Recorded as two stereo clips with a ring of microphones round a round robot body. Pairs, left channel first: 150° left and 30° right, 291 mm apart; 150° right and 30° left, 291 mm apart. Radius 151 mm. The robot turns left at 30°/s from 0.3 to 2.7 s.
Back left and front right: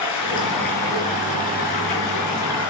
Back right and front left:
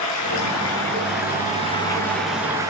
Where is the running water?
Straight behind, 10 m; by 2.7 s 110° left, 10 m.